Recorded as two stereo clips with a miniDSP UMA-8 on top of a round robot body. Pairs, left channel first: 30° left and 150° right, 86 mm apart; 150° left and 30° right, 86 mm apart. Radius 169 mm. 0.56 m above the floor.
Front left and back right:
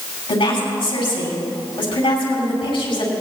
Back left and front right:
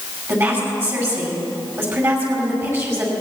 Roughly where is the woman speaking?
Ahead left.